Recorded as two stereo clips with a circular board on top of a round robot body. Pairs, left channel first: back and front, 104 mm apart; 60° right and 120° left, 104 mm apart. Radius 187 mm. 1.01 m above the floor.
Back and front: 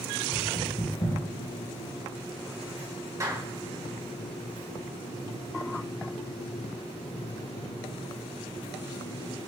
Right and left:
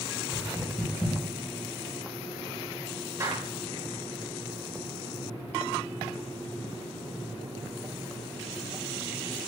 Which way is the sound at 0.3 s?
135° right.